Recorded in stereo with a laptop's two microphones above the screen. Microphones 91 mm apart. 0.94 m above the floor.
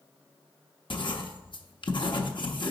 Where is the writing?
60° left (ahead or behind), 0.9 m.